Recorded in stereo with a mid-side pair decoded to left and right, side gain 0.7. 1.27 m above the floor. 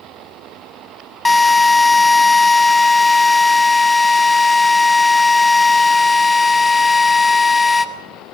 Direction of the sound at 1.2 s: 15° left.